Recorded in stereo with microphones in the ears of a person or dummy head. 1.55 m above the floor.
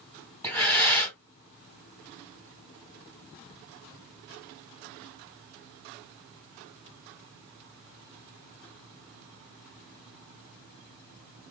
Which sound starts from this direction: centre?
Breathing, at 0.4 s.